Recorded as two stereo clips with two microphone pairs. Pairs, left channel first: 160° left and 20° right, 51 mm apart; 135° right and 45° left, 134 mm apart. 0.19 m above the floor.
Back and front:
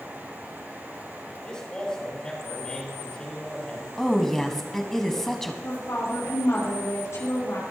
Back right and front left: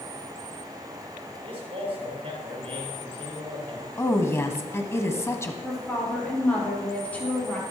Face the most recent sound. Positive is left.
turn(degrees=145)